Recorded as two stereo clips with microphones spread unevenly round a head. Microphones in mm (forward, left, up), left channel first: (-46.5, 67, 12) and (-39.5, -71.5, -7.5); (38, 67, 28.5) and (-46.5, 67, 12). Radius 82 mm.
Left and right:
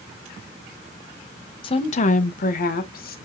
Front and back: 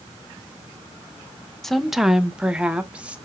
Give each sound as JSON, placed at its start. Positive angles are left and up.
{"t": 1.6, "sound": "a woman speaking", "azimuth_deg": 105, "distance_m": 0.6}